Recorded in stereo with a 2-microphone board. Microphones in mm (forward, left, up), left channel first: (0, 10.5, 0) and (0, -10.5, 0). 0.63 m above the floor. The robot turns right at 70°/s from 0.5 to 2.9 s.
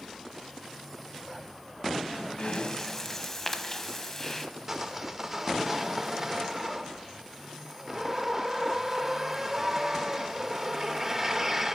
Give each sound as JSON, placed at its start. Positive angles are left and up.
{"t": 2.4, "sound": "breathing", "azimuth_deg": 125, "distance_m": 0.9}
{"t": 4.7, "sound": "sawing", "side_deg": -15, "distance_m": 0.8}